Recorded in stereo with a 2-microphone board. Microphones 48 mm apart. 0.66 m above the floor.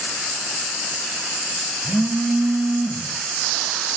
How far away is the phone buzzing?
About 1.5 m.